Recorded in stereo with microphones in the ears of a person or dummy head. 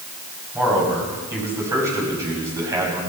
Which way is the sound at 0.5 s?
10° right (ahead or behind).